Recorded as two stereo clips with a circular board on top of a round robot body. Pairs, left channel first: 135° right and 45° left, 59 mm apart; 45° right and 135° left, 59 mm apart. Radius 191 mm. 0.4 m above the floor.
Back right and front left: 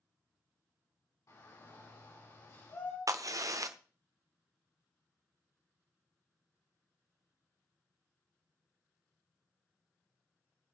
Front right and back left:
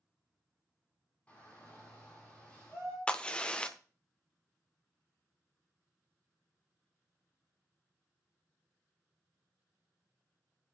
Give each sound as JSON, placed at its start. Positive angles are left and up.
{"t": 1.3, "sound": "a shout", "azimuth_deg": -115, "distance_m": 5.5}
{"t": 3.1, "sound": "a crack", "azimuth_deg": 25, "distance_m": 1.0}